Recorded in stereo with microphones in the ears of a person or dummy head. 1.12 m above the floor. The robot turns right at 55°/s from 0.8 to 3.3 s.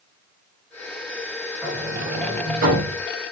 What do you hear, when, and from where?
1.6 s a sliding door: 175° right, 4.5 m; by 3.0 s 100° right, 4.5 m